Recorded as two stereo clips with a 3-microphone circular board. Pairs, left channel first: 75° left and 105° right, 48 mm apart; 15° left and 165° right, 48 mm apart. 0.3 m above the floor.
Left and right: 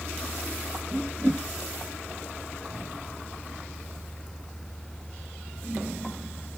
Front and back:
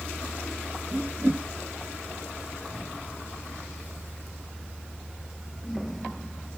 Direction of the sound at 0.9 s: 140° right.